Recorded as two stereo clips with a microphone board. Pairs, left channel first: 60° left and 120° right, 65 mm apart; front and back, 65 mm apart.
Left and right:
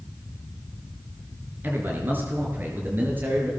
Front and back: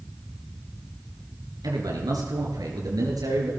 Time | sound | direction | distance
1.6 | a man speaking | straight behind | 5 m